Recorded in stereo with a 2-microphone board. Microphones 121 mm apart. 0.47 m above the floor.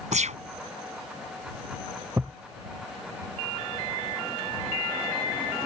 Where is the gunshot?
75° right (ahead or behind).